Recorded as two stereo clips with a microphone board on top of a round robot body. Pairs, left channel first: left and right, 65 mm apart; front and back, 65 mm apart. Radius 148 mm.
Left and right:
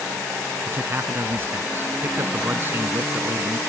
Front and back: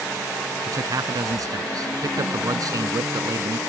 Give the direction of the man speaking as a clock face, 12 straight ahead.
5 o'clock.